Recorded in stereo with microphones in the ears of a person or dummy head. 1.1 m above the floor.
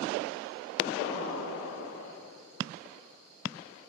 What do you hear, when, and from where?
1.0 s an explosion: 75° left (ahead or behind), 8.5 m